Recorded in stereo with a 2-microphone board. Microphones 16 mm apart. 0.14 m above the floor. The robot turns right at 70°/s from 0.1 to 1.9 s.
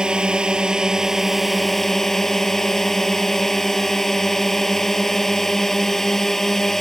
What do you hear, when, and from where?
0.0 s a drone: 105° right; by 6.8 s 25° left